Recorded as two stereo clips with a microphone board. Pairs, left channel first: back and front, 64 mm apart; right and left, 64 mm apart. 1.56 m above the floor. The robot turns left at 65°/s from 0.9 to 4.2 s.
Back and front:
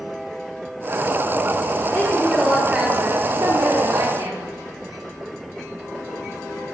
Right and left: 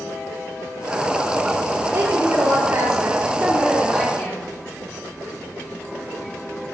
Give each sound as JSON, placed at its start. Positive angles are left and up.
{"t": 1.9, "sound": "a woman speaking", "azimuth_deg": 125, "distance_m": 3.5}